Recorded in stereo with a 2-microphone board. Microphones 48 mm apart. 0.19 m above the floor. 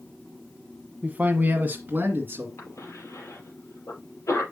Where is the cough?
70° left (ahead or behind), 5 m.